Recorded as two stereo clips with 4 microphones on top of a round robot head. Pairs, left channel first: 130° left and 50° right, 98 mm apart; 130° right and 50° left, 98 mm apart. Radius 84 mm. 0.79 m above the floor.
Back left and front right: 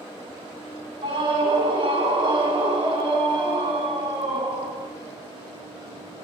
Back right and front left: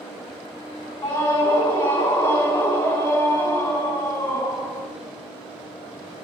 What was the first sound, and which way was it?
A scream, 85° right.